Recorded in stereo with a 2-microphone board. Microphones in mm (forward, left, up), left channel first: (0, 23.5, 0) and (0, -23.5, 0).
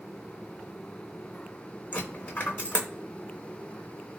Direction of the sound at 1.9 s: 25° left (ahead or behind).